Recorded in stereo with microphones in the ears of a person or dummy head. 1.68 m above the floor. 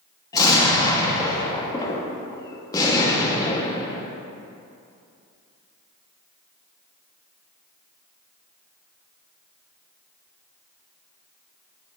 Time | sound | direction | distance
0.3 | an explosion | 15° left (ahead or behind) | 1.1 m